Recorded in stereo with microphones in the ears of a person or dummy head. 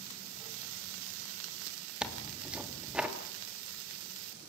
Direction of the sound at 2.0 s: 5° right (ahead or behind).